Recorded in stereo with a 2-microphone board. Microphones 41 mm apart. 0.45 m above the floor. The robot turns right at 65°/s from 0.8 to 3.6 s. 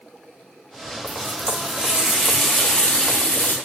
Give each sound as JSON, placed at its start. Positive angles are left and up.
{"t": 1.1, "sound": "a running tap", "azimuth_deg": -90, "distance_m": 1.0}